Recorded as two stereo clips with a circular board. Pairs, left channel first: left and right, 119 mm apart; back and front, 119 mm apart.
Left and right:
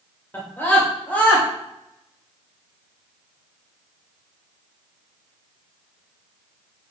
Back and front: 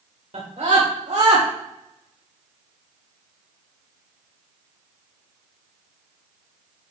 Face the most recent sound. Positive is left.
turn(degrees=15)